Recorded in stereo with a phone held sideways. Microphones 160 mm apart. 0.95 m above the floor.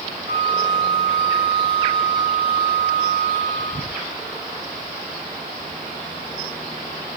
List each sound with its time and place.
0.3 s a flute: 30° right (ahead or behind), 1.5 m